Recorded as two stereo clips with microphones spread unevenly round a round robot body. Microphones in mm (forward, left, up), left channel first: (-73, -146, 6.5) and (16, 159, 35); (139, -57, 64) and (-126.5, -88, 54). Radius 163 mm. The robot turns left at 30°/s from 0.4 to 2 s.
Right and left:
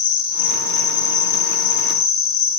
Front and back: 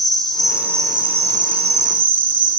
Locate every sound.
0.0 s an insect: 80° right, 0.8 m; by 2.6 s 130° right, 0.8 m